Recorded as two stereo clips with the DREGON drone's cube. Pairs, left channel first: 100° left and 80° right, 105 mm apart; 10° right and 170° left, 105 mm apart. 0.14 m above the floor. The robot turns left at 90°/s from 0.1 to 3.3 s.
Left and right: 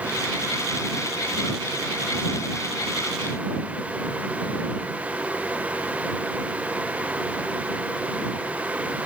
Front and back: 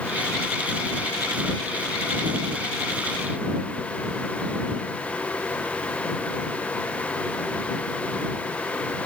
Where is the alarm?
No alarm in this recording.